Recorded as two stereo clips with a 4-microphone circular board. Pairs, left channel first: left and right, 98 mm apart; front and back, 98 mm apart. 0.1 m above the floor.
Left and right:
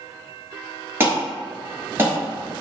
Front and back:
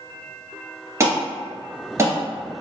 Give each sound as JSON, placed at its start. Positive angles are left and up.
{"t": 1.0, "sound": "an alarm", "azimuth_deg": -140, "distance_m": 1.4}